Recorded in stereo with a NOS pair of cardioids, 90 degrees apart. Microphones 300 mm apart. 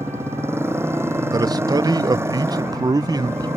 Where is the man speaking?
15° right.